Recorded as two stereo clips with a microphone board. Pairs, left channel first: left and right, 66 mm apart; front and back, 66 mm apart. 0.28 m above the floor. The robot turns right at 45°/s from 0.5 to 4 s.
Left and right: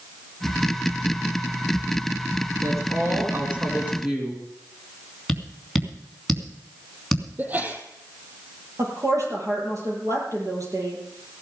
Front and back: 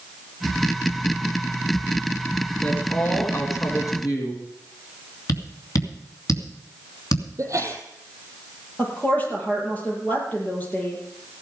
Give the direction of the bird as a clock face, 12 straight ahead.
No bird in this recording.